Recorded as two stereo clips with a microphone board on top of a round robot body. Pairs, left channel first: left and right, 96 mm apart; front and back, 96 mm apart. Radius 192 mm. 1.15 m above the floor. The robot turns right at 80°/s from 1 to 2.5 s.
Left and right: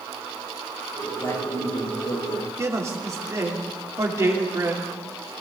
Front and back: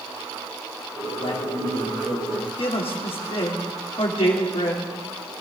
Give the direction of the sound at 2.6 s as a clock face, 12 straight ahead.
1 o'clock.